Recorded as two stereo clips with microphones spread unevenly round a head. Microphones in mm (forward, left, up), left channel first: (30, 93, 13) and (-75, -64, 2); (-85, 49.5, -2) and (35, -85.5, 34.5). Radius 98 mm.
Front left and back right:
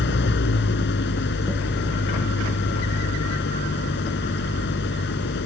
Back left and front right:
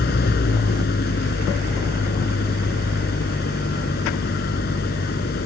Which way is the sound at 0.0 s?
85° left.